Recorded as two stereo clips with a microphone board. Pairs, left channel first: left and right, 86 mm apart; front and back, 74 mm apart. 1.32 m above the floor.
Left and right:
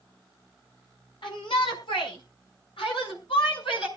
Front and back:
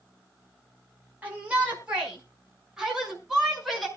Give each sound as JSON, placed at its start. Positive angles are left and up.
{"t": 1.2, "sound": "a shout", "azimuth_deg": 110, "distance_m": 5.5}